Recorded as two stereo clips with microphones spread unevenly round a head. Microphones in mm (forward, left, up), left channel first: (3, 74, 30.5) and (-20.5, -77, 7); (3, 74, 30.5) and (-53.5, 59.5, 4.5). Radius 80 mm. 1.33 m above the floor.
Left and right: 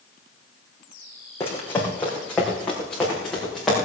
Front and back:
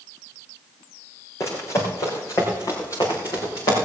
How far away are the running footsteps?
About 3.5 m.